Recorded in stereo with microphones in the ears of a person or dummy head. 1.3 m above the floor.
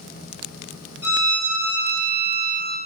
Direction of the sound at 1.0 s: 15° right (ahead or behind).